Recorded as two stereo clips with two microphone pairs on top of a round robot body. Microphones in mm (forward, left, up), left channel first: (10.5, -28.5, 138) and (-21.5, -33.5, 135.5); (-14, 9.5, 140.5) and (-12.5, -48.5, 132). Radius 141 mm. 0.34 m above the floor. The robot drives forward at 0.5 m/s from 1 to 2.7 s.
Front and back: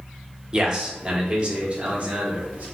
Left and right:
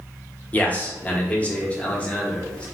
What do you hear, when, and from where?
0.5 s a man speaking: 150° left, 1.2 m; by 2.6 s 165° left, 1.7 m